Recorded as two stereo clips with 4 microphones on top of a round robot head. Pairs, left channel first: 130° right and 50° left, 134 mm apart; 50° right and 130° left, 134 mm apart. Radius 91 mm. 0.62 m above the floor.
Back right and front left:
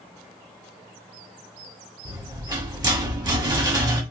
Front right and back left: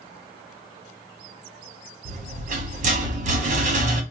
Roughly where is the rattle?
Left.